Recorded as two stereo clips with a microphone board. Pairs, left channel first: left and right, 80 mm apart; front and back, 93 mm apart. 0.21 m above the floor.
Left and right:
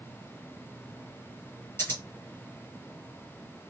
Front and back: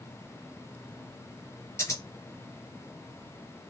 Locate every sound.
1.8 s scissors: 40° left, 2 m